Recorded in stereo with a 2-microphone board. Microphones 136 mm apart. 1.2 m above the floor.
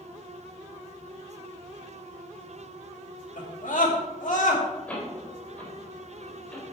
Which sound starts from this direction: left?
A scream, at 3.4 s.